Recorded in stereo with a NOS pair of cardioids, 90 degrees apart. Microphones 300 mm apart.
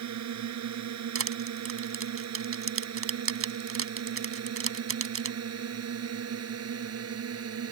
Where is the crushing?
45° right.